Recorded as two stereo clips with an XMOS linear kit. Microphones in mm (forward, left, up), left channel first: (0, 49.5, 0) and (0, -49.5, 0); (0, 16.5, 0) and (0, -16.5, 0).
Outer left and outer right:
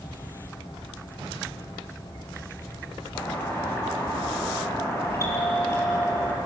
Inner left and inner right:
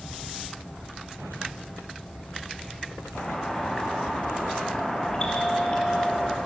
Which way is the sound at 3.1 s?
25° left (ahead or behind).